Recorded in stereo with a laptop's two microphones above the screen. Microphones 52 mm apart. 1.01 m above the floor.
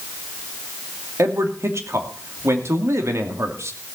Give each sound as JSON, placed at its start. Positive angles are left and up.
{"t": 1.2, "sound": "a man speaking", "side_deg": -60, "distance_m": 2.5}